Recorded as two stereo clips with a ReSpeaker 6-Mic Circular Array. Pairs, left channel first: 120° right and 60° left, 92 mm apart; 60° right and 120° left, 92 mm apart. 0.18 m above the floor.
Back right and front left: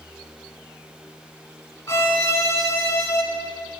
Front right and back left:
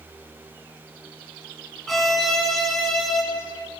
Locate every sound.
1.9 s a violin: 145° right, 1.5 m